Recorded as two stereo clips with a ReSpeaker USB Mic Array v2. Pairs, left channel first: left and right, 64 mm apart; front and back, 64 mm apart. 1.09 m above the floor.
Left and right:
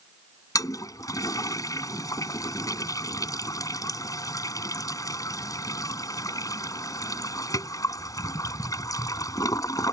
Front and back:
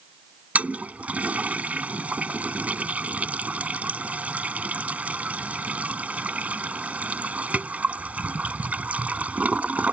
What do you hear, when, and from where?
0.6 s a toilet flushing: 115° left